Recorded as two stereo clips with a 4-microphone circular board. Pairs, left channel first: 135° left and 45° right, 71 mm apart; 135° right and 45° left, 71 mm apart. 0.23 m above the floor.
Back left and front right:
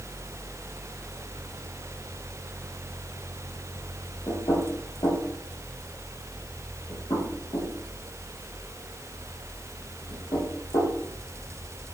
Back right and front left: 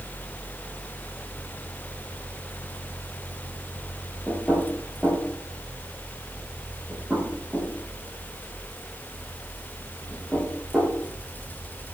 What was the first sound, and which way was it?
Knocking, 135° left.